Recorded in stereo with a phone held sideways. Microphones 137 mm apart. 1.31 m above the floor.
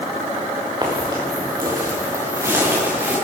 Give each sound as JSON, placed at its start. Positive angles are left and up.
{"t": 0.8, "sound": "footsteps", "side_deg": -30, "distance_m": 6.5}